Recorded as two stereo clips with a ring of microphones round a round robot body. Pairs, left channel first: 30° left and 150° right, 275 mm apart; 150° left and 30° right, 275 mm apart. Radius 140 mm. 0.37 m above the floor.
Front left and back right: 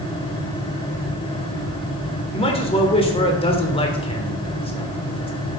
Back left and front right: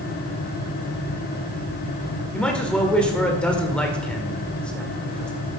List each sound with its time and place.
2.3 s a man speaking: 70° left, 1.5 m